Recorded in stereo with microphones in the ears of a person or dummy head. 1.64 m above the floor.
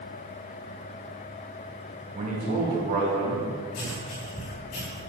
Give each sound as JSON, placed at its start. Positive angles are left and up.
{"t": 2.1, "sound": "a man speaking", "side_deg": -35, "distance_m": 2.0}
{"t": 3.7, "sound": "writing", "side_deg": 80, "distance_m": 2.0}